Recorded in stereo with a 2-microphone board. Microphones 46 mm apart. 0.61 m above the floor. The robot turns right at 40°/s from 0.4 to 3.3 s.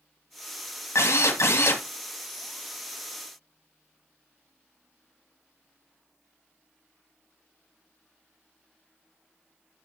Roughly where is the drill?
Left.